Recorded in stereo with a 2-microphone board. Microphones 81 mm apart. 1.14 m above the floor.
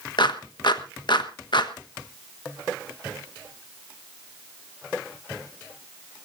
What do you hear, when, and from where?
0.2 s a clap: 60° left (ahead or behind), 1.3 m